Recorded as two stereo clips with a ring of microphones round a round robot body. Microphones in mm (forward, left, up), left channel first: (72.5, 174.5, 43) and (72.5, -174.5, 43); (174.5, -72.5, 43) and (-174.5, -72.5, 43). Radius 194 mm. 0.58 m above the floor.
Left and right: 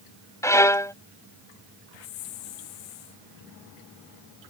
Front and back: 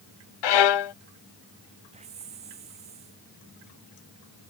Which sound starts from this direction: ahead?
A violin, at 0.4 s.